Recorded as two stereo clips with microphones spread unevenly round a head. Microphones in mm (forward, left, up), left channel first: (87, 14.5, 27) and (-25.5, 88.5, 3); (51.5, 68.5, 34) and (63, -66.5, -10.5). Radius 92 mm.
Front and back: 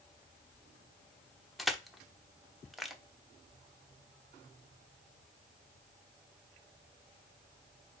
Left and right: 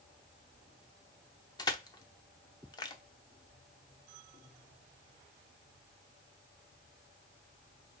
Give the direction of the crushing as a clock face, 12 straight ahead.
10 o'clock.